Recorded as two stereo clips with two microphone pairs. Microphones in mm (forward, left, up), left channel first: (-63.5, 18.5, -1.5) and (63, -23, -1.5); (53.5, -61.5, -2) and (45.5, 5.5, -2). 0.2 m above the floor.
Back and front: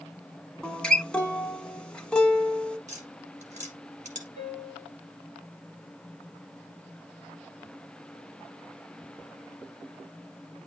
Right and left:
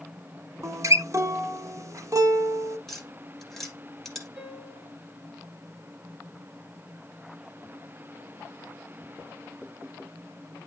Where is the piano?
Straight ahead, 3.5 m.